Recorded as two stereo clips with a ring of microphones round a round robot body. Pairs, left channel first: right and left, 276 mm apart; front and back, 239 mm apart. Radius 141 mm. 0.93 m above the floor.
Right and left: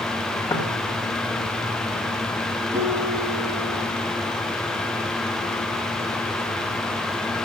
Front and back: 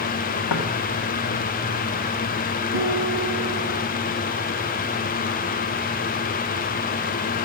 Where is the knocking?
10° right, 1.8 m.